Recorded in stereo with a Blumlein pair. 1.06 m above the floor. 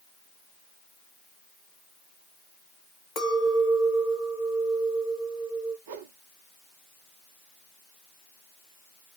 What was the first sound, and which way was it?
A clink, 35° left.